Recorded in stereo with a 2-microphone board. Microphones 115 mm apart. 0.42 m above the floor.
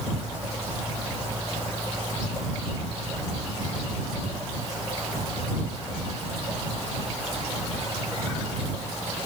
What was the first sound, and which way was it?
Only background noise.